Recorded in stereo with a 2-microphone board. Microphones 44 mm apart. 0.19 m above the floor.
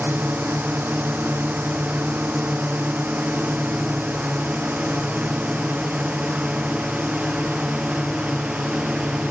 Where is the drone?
40° right (ahead or behind); by 9.3 s 15° right (ahead or behind).